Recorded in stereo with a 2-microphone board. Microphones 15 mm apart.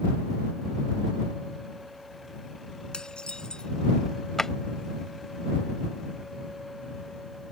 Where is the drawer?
30° left (ahead or behind).